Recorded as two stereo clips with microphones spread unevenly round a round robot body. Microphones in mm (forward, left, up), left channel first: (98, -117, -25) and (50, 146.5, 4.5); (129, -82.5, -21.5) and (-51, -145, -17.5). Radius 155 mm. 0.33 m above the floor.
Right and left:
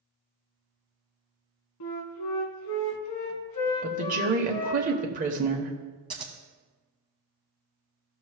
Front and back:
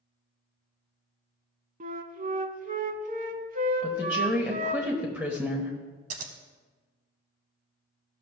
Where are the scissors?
Straight behind, 0.7 m.